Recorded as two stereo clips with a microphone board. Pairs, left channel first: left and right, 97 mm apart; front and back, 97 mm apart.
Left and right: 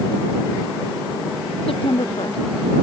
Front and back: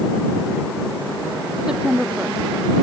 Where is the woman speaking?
95° left.